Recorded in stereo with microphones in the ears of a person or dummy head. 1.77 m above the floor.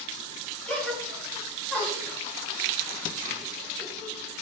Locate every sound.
0.7 s a gasp: 10° left (ahead or behind), 3.5 m